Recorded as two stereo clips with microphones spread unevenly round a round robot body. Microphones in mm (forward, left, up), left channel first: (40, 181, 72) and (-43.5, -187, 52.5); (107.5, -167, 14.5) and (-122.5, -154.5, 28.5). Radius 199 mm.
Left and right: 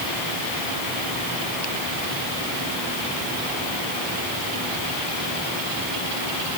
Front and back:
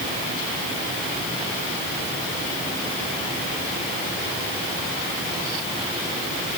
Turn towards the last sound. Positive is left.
No sound to turn to.